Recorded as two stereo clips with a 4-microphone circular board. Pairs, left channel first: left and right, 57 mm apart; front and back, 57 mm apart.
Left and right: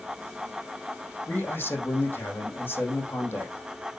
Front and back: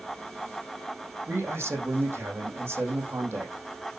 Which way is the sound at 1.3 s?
140° left.